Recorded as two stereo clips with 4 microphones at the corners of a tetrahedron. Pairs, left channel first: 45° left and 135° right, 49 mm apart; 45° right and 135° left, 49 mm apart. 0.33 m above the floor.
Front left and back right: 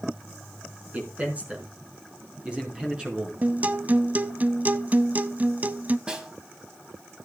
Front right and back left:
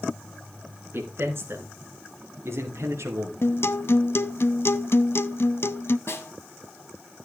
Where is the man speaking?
170° left, 4.5 m; by 3.3 s 155° left, 5 m.